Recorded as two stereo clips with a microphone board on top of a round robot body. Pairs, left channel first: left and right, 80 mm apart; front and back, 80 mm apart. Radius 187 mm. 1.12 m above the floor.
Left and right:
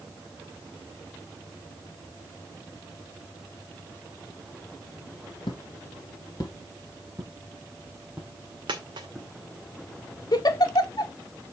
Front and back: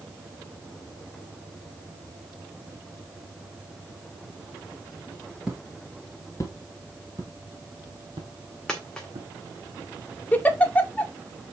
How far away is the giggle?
About 1.6 m.